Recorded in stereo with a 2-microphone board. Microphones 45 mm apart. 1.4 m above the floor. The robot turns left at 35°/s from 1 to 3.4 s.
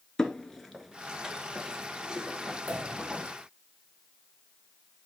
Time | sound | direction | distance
0.2 | footsteps | 15° left (ahead or behind) | 1.4 m
2.7 | a pop | 85° right | 3.5 m